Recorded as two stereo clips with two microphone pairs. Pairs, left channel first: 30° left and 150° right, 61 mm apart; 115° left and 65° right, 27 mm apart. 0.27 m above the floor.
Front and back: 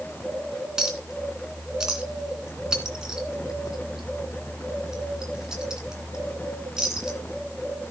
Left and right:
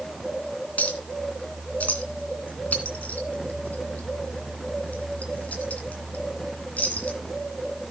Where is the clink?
130° left, 2.5 m.